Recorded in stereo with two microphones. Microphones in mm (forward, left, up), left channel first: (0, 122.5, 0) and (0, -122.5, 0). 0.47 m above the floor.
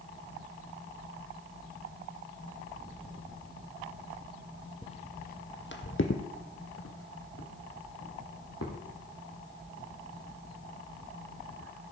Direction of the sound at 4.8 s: 20° left (ahead or behind).